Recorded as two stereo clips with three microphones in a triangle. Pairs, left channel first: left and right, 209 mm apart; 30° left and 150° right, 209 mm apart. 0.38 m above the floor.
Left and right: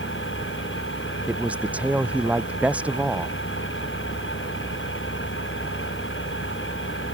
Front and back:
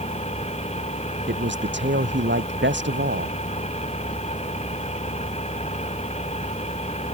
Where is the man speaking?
175° right.